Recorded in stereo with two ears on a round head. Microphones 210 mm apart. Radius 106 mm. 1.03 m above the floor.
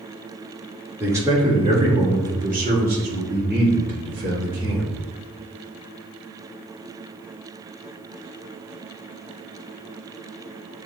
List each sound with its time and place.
1.0 s a man speaking: 10° right (ahead or behind), 1.4 m; by 4.9 s 55° right (ahead or behind), 2.5 m